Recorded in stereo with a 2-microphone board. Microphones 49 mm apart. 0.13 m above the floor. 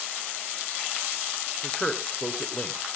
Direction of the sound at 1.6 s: 20° left (ahead or behind).